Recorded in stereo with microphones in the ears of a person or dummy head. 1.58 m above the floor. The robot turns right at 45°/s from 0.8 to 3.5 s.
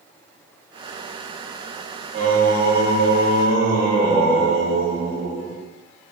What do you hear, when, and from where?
2.1 s singing: 125° right, 1.2 m; by 5.6 s 65° right, 1.2 m